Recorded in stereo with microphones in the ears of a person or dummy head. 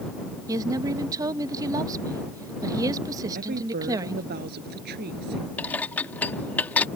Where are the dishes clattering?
5° left (ahead or behind).